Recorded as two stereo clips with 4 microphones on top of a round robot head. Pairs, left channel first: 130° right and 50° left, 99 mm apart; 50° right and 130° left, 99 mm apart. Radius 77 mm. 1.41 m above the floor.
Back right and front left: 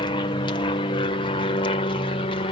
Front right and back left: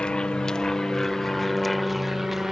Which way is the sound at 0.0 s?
125° right.